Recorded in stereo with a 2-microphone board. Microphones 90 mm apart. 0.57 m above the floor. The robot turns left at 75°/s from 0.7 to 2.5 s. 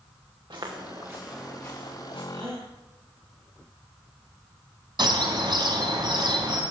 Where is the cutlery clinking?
No cutlery clinking in this recording.